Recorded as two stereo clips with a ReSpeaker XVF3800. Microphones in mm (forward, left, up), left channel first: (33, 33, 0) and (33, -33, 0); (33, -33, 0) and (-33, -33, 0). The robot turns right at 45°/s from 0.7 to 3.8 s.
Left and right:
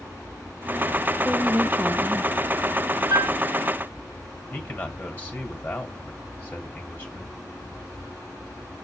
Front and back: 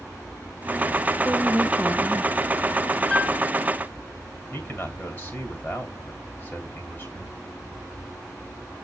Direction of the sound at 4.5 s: 35° left.